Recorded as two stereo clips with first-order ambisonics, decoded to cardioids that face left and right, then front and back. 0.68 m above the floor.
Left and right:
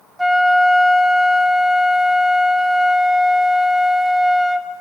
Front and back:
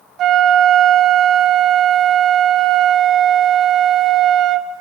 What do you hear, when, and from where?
0.2 s a flute: 175° right, 0.7 m